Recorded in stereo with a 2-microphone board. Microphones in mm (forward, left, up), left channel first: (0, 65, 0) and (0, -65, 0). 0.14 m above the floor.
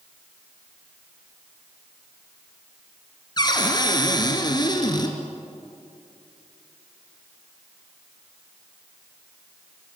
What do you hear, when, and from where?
3.4 s a cupboard door: 35° left (ahead or behind), 2.5 m